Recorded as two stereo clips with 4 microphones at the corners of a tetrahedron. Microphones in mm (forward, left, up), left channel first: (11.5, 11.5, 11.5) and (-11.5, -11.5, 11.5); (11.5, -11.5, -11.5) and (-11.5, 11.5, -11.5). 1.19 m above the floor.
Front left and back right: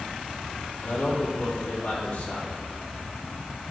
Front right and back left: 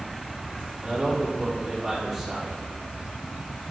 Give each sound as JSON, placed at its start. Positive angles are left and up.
{"t": 0.8, "sound": "a man speaking", "azimuth_deg": 50, "distance_m": 3.5}